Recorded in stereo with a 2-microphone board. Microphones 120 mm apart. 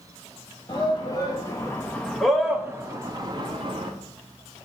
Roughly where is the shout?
Left.